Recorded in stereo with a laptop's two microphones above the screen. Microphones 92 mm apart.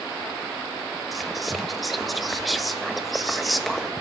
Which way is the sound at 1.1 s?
Centre (ahead or behind).